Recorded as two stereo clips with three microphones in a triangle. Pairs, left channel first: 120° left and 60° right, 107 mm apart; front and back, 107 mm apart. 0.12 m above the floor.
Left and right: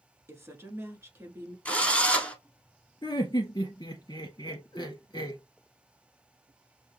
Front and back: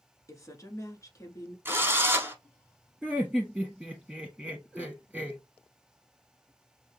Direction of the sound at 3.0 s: 95° left.